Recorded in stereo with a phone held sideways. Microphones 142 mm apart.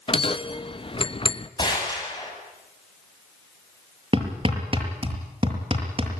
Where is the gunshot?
30° left (ahead or behind), 8 m.